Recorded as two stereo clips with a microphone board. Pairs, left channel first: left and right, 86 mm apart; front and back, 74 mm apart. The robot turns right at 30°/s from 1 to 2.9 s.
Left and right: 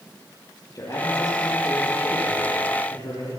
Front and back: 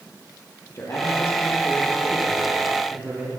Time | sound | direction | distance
0.8 | a man speaking | 50° left | 7.5 m